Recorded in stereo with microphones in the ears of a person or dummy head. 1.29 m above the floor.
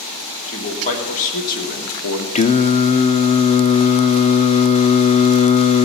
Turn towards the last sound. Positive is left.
turn(degrees=35)  # may be behind; listen again after turning